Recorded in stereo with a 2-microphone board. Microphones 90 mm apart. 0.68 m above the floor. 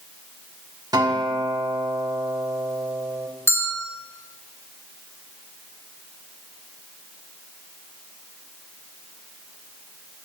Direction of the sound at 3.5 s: 30° left (ahead or behind).